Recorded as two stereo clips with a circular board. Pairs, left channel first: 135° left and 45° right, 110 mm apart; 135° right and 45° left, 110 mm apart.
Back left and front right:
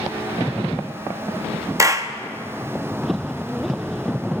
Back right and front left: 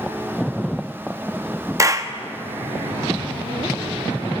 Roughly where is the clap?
Ahead.